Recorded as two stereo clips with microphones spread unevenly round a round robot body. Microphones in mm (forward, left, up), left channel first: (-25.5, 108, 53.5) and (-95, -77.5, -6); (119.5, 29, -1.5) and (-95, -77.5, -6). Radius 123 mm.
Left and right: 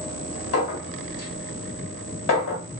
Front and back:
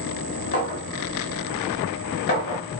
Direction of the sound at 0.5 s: 80° left.